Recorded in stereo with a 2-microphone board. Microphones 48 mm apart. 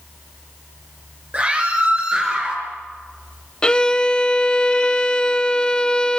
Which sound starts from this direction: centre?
A violin, at 3.6 s.